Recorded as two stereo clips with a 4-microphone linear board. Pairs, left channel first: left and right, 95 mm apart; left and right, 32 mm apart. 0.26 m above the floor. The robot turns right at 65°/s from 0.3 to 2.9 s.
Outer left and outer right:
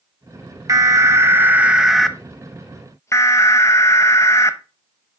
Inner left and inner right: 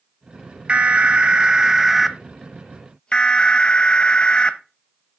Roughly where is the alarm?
Right.